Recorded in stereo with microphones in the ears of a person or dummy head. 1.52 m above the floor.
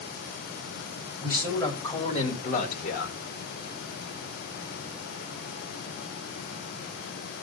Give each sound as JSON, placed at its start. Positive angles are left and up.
{"t": 1.2, "sound": "a man speaking", "side_deg": 15, "distance_m": 3.5}